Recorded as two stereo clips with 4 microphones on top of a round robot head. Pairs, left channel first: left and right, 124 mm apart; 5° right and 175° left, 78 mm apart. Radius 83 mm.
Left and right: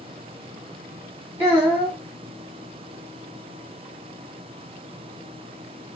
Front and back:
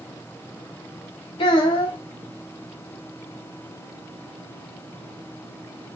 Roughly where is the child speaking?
Ahead.